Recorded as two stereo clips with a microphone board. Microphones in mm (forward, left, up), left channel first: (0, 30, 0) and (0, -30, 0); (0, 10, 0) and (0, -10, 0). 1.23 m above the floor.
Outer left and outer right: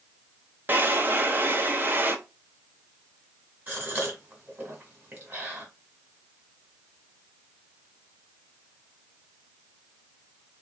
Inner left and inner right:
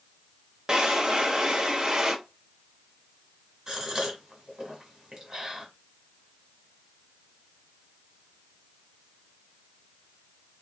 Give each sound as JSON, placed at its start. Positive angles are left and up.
{"t": 0.7, "sound": "a drawer", "side_deg": -35, "distance_m": 0.6}
{"t": 3.7, "sound": "a gasp", "side_deg": -30, "distance_m": 1.6}